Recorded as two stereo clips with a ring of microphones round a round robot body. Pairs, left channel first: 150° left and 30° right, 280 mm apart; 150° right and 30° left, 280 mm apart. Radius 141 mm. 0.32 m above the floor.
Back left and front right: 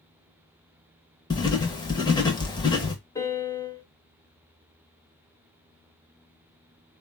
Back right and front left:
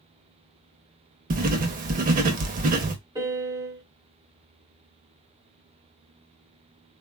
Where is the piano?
85° left, 1.2 m.